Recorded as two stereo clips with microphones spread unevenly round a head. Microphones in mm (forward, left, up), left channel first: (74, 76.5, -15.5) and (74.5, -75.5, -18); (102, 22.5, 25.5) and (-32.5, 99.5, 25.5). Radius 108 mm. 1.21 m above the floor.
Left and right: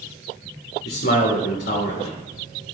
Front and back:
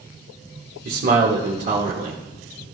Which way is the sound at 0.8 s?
130° left.